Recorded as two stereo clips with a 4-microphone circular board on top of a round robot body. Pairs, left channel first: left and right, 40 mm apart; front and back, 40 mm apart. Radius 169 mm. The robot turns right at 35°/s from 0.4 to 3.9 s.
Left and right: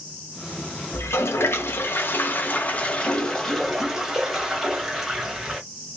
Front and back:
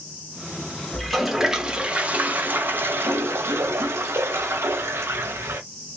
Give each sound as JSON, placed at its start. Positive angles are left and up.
{"t": 0.9, "sound": "a toilet flushing", "azimuth_deg": 85, "distance_m": 1.1}